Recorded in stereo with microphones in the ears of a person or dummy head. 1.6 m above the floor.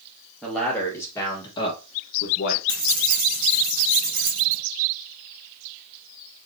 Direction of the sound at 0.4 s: 5° right (ahead or behind).